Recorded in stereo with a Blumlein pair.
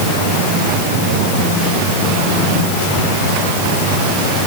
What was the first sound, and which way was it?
Only background noise.